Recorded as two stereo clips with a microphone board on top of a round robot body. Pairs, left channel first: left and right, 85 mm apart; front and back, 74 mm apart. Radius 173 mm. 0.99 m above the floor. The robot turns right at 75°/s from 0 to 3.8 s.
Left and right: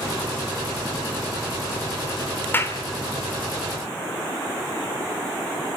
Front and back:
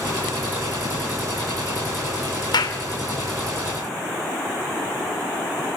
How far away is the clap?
About 3 m.